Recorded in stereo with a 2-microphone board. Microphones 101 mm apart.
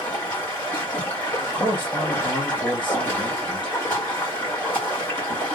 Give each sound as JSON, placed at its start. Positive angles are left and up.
{"t": 0.0, "sound": "running water", "side_deg": 20, "distance_m": 1.9}
{"t": 1.4, "sound": "a man speaking", "side_deg": 45, "distance_m": 2.0}